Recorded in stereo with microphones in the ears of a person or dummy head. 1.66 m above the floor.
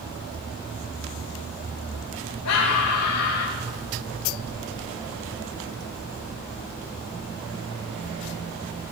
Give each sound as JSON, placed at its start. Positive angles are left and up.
{"t": 2.5, "sound": "a scream", "side_deg": 85, "distance_m": 3.5}